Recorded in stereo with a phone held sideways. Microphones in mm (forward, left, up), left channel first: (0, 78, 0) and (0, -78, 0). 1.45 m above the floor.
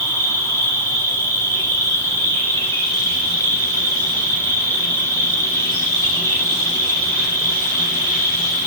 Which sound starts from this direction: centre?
An insect, at 0.0 s.